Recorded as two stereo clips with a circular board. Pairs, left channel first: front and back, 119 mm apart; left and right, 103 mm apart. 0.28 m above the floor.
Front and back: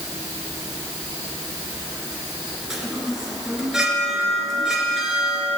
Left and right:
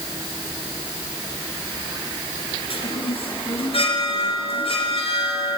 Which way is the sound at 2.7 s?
95° left.